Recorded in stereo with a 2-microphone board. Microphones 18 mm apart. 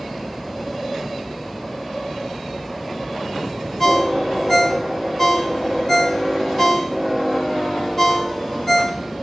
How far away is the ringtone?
About 1.3 m.